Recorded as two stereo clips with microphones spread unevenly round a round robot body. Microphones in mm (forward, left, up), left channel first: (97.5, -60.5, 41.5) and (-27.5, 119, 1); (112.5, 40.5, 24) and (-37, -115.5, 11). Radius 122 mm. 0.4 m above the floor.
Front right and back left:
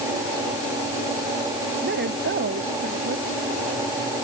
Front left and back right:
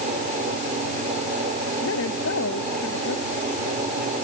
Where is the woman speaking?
85° left.